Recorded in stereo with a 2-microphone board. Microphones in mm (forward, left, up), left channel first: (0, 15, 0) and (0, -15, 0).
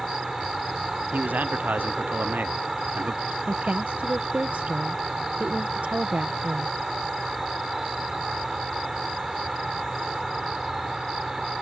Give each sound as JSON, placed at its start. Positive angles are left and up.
{"t": 0.0, "sound": "an insect", "side_deg": -10}
{"t": 1.1, "sound": "a man speaking", "side_deg": -75}
{"t": 3.5, "sound": "a woman speaking", "side_deg": -60}